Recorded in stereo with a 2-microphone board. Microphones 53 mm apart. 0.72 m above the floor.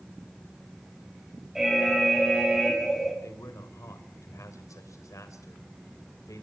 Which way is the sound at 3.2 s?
75° left (ahead or behind).